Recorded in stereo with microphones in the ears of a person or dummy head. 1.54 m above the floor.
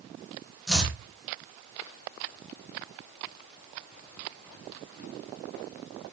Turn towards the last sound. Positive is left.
turn(degrees=0)  # may be behind; listen again after turning